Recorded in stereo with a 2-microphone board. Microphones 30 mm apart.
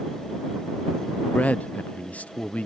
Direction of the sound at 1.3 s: 60° left (ahead or behind).